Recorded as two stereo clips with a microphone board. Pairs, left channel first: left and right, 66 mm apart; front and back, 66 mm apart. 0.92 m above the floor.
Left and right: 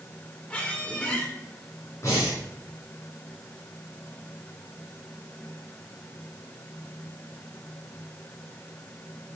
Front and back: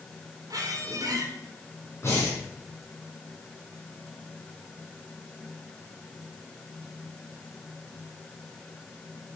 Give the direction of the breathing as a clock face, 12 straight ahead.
10 o'clock.